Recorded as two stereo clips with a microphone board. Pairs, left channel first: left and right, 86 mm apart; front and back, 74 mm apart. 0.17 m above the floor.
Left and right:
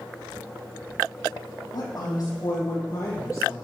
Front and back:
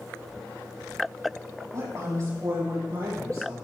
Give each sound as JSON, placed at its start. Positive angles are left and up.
{"t": 1.7, "sound": "a woman speaking", "azimuth_deg": 135, "distance_m": 6.5}